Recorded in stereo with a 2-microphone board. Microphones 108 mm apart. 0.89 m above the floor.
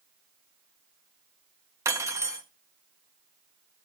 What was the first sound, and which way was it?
Cutlery clinking, 30° right (ahead or behind).